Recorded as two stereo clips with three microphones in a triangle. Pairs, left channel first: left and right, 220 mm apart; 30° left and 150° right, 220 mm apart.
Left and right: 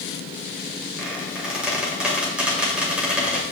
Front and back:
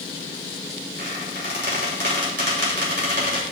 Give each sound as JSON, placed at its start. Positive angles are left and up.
{"t": 1.0, "sound": "a squeak", "azimuth_deg": -175, "distance_m": 2.0}